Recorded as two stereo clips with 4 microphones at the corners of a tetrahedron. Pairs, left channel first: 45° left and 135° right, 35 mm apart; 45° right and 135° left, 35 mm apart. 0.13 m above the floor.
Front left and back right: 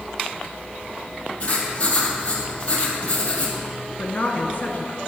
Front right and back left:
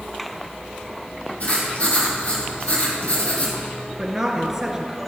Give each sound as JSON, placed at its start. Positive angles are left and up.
{"t": 1.4, "sound": "writing", "azimuth_deg": 0, "distance_m": 3.5}
{"t": 4.0, "sound": "a woman speaking", "azimuth_deg": 70, "distance_m": 1.6}